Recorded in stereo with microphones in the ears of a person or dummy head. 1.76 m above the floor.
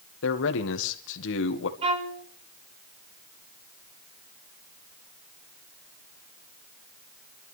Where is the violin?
30° right (ahead or behind), 1.9 m.